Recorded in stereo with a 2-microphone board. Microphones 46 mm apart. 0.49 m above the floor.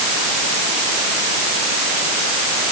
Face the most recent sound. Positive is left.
No sound to turn to.